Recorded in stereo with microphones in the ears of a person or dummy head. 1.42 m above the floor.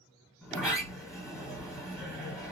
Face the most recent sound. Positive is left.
turn(degrees=0)  # may be behind; listen again after turning